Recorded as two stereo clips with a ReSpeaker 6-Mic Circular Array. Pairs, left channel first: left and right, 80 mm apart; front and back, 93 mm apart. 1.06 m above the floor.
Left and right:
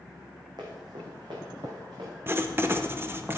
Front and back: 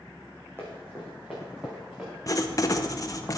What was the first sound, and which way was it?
Running footsteps, 115° right.